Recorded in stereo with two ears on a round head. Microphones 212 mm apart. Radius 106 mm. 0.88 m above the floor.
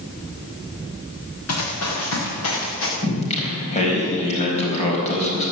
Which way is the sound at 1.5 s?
70° left (ahead or behind).